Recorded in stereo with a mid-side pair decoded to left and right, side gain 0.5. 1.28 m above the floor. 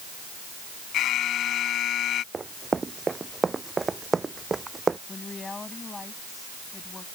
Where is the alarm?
65° left.